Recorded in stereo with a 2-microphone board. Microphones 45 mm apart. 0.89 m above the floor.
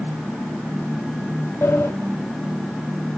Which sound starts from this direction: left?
A sliding door, at 1.6 s.